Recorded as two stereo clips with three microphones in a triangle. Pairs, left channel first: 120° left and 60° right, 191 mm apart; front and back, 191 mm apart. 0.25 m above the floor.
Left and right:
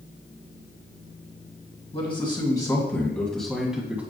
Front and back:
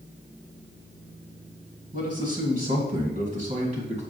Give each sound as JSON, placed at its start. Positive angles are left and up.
{"t": 1.9, "sound": "a man speaking", "azimuth_deg": 165, "distance_m": 1.9}